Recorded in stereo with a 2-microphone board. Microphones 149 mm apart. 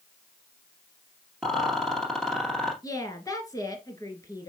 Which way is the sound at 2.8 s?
25° left (ahead or behind).